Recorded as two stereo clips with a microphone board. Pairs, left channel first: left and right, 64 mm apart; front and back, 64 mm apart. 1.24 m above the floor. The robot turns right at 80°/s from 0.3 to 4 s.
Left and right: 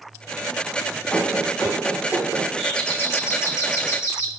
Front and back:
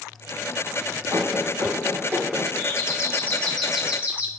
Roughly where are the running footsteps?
Behind left.